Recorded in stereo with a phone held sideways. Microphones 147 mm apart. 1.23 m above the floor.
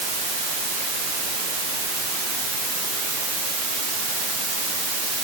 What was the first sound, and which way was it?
Only background noise.